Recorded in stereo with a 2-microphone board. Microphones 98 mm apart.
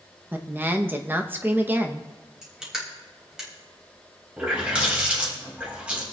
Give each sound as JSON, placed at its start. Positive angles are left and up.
{"t": 0.3, "sound": "a woman speaking", "side_deg": -20, "distance_m": 0.9}
{"t": 2.4, "sound": "crushing", "side_deg": -5, "distance_m": 3.0}
{"t": 4.4, "sound": "a running tap", "side_deg": -15, "distance_m": 3.5}